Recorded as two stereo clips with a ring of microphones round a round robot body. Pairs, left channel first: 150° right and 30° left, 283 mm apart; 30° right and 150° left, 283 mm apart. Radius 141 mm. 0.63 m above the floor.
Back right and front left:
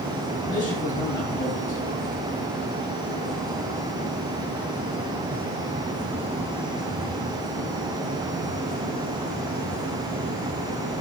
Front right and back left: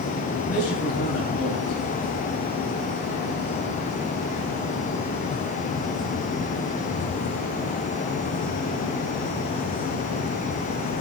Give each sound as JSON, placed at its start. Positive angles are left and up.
{"t": 0.4, "sound": "a man speaking", "azimuth_deg": -75, "distance_m": 4.5}